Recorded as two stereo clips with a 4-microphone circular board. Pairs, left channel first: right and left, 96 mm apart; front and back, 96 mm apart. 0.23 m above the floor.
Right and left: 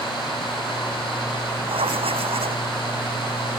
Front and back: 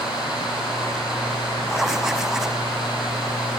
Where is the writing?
95° left.